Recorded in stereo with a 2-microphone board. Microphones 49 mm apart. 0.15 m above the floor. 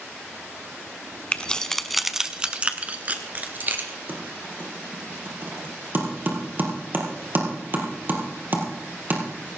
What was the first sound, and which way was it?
Keys jangling, 25° left (ahead or behind).